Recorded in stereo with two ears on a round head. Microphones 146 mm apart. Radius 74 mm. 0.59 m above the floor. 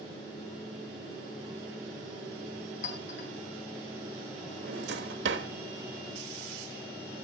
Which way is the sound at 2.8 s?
55° left (ahead or behind).